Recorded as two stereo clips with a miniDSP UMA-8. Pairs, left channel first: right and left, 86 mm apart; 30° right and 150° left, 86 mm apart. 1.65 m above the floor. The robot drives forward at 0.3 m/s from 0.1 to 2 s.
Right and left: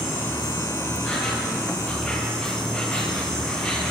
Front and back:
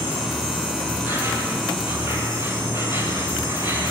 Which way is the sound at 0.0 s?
160° right.